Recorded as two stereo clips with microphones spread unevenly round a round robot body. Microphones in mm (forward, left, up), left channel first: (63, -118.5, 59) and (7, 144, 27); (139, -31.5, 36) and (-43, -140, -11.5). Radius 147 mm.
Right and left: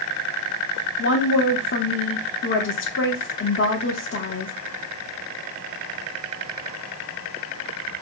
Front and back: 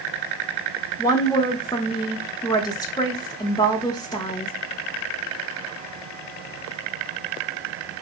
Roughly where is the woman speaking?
Ahead right.